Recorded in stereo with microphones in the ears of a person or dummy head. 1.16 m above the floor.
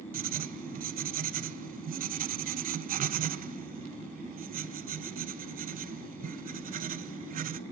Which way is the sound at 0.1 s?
45° right (ahead or behind).